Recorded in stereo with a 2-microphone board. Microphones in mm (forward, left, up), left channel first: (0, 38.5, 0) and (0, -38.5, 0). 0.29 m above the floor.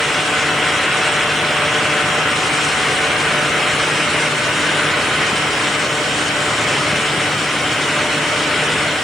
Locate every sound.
Only background noise.